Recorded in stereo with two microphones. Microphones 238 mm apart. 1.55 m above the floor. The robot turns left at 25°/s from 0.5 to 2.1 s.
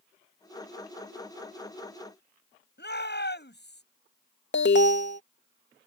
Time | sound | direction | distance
2.8 | a shout | 45° left (ahead or behind) | ?
4.5 | an alarm | 50° left (ahead or behind) | ?